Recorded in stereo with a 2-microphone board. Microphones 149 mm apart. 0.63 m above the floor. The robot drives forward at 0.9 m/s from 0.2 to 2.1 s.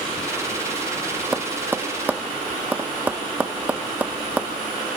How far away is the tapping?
About 0.7 m.